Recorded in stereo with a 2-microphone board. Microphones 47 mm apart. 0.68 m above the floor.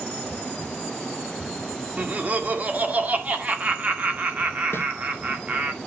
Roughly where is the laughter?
Right.